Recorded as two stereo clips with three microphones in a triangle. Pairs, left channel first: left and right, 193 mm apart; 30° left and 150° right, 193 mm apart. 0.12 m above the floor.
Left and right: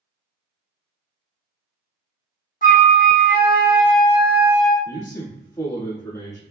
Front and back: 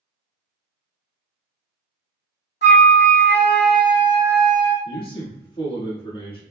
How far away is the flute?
About 0.7 m.